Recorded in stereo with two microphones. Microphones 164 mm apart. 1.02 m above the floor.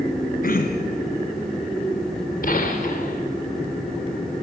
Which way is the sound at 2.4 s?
60° left (ahead or behind).